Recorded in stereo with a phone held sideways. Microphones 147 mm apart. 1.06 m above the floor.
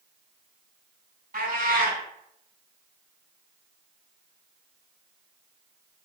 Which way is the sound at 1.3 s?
70° right (ahead or behind).